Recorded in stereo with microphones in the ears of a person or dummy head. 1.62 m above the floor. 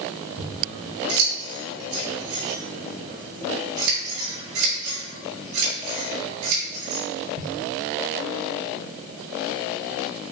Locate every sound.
0.4 s scissors: 85° right, 2.5 m